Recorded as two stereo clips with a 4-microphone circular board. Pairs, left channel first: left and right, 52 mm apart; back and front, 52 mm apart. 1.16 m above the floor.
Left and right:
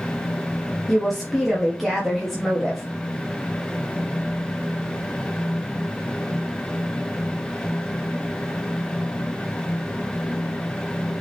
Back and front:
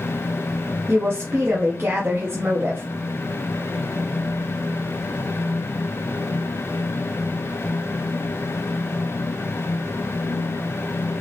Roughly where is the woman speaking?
Ahead.